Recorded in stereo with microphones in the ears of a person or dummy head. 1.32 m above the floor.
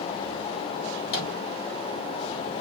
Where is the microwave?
75° left (ahead or behind), 1.3 m.